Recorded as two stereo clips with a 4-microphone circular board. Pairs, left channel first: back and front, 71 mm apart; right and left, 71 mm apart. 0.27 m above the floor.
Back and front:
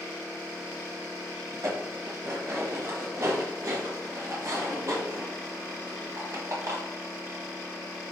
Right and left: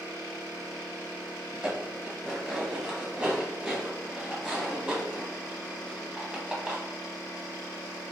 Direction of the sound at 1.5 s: 15° left.